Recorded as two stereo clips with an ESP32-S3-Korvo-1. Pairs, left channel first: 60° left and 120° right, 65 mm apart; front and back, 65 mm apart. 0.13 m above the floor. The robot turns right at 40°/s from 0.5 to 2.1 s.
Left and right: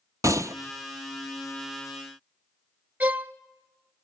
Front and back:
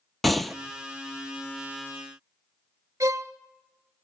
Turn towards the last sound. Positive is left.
turn(degrees=180)